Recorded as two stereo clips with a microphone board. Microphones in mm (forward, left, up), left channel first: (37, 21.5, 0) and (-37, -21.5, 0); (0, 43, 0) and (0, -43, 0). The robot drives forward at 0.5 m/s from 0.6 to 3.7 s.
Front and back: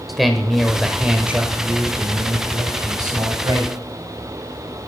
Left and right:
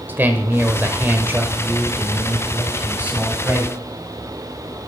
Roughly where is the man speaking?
Ahead right.